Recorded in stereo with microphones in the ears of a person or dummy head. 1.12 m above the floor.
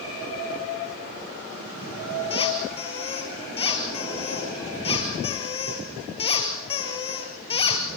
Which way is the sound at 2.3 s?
30° left (ahead or behind).